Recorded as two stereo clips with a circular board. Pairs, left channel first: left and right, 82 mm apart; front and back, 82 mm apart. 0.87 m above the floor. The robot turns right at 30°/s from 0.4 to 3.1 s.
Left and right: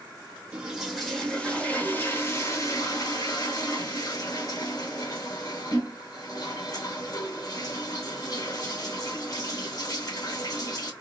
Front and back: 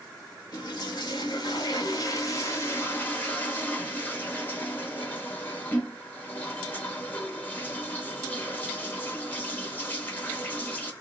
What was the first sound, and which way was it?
A toilet flushing, 15° right.